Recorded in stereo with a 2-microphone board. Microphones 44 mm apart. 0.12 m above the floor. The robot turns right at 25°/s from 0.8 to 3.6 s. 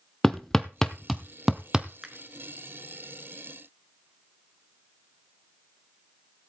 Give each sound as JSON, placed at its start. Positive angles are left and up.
{"t": 0.2, "sound": "hammering", "side_deg": 10, "distance_m": 0.8}
{"t": 2.0, "sound": "a finger snap", "side_deg": -20, "distance_m": 1.5}